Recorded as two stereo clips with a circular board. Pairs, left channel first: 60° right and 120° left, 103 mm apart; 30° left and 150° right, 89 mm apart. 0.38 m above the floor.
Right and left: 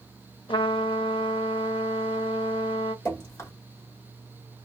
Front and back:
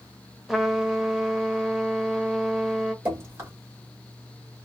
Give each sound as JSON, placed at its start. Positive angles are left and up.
{"t": 0.5, "sound": "a trumpet", "azimuth_deg": -65, "distance_m": 0.6}
{"t": 3.0, "sound": "dripping", "azimuth_deg": -105, "distance_m": 1.8}